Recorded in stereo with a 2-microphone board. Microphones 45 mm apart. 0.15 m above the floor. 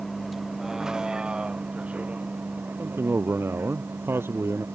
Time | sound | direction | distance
0.0 | a vehicle | centre (ahead or behind) | ?
2.8 | a man speaking | 60° right (ahead or behind) | ?